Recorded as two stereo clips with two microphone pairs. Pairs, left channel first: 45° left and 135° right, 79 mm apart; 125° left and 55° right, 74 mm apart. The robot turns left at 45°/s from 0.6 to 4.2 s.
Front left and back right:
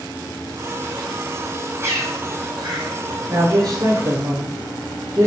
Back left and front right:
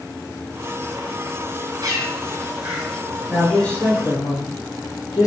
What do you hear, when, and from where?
1.8 s a bird: 80° right, 5.5 m; by 3.0 s 130° right, 5.5 m
3.3 s a man speaking: 145° right, 4.5 m; by 5.3 s 175° left, 4.5 m